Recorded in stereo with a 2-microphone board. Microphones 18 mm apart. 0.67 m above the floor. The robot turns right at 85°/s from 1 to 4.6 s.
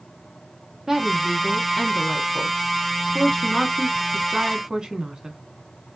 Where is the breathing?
No breathing in this recording.